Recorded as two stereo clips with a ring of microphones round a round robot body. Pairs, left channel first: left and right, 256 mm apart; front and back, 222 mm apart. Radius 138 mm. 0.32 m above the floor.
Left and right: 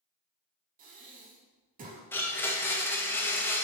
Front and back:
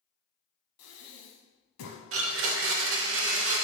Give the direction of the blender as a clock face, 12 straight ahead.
6 o'clock.